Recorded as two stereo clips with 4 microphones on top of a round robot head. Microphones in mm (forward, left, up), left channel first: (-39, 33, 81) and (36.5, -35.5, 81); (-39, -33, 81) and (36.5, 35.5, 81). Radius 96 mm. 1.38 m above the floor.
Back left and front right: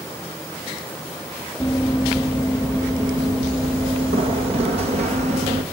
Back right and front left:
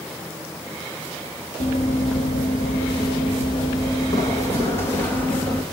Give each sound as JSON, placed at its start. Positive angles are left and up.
{"t": 1.6, "sound": "running footsteps", "azimuth_deg": -140, "distance_m": 3.0}